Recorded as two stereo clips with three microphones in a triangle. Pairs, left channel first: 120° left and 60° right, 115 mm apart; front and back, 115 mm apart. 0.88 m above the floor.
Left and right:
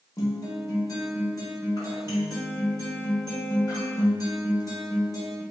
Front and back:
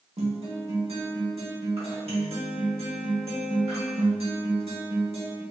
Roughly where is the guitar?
Behind.